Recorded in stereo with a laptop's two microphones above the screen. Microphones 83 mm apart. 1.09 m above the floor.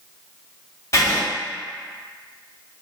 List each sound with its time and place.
0.9 s writing: 40° left (ahead or behind), 1.2 m